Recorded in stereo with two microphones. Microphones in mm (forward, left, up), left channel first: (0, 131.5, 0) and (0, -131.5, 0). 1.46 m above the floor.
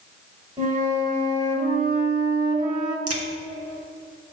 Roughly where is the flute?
Right.